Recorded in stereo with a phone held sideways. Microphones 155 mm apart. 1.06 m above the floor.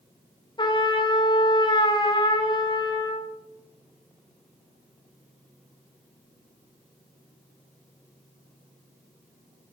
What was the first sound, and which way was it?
A trumpet, 30° left (ahead or behind).